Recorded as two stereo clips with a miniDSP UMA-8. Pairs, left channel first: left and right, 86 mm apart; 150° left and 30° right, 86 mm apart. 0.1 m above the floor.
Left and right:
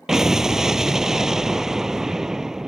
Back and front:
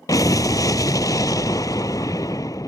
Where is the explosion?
175° right.